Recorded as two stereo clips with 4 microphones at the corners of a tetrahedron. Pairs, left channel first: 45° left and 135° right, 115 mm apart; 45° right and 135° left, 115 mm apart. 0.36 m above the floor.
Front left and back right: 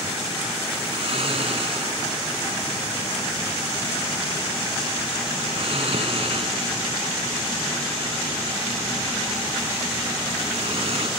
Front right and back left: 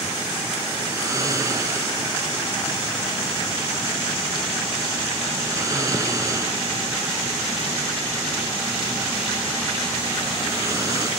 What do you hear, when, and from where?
0.9 s snoring: 165° right, 1.5 m